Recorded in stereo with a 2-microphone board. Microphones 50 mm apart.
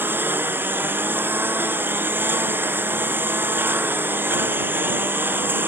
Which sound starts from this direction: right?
A lawn mower, at 0.0 s.